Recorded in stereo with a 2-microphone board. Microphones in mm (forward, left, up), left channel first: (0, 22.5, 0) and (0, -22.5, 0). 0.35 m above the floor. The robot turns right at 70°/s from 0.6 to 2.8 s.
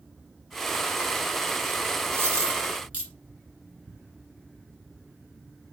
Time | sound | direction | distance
2.1 | a dropped coin | 75° right (ahead or behind) | 1.9 m